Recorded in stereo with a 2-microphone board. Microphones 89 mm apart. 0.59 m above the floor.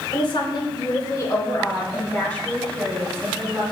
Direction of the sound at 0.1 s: 65° left (ahead or behind).